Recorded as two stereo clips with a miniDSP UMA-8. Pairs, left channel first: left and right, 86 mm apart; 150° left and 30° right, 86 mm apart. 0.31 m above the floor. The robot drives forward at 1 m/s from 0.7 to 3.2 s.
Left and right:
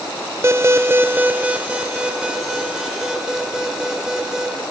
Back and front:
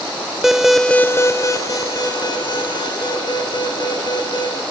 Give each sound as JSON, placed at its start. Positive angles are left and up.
{"t": 0.4, "sound": "an alarm", "azimuth_deg": -115, "distance_m": 0.6}